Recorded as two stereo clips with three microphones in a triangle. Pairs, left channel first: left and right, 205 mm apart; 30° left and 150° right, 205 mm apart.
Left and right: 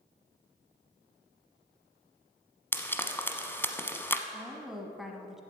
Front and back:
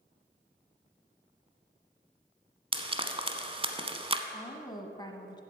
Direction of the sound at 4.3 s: 5° right.